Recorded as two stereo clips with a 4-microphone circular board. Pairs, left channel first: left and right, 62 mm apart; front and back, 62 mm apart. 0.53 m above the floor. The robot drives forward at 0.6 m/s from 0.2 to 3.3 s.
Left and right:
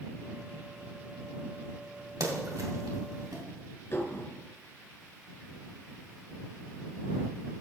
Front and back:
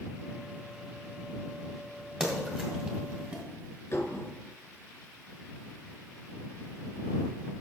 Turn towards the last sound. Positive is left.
turn(degrees=50)